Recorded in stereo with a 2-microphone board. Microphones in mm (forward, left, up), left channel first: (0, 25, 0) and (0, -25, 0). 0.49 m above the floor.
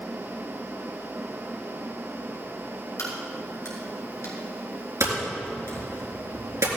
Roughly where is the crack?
Left.